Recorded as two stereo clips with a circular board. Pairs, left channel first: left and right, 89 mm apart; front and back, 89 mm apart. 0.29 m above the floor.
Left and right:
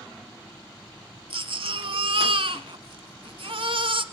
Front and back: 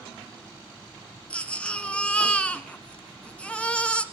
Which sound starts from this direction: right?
A baby crying, at 1.3 s.